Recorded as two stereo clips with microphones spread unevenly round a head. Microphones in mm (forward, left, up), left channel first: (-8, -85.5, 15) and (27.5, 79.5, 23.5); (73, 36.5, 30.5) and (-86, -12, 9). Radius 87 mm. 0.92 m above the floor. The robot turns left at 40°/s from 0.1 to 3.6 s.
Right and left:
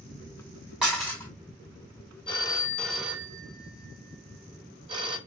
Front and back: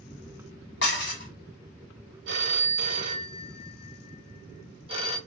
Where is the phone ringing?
165° right, 0.8 m; by 5.2 s 145° left, 0.8 m.